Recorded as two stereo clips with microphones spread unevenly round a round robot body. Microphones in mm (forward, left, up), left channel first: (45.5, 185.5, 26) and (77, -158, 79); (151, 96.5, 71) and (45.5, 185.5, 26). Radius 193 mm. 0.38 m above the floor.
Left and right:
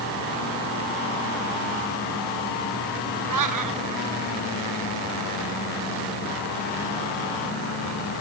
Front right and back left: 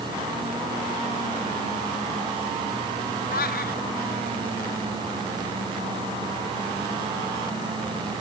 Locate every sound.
3.3 s a cat meowing: 50° right